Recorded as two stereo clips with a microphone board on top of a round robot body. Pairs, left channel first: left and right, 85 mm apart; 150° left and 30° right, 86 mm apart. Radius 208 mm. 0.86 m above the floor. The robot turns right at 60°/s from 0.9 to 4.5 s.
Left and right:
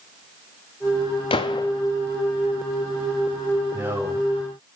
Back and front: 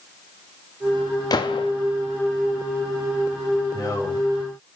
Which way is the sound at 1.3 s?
105° left.